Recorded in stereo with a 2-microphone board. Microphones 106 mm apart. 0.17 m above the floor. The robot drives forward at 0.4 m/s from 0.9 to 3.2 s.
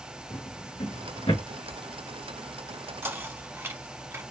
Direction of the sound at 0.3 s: 80° left.